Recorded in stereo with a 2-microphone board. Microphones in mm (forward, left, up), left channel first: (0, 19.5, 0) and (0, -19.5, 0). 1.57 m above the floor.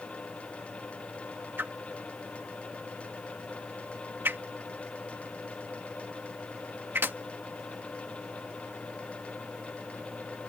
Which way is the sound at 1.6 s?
70° right (ahead or behind).